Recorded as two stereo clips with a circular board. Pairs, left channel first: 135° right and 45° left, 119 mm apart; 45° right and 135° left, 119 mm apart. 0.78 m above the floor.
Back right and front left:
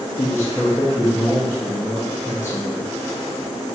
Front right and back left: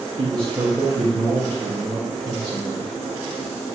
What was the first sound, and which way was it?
A man speaking, 170° left.